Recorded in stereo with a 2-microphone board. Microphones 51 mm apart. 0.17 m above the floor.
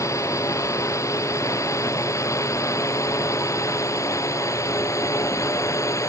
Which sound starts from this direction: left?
A drone, at 0.0 s.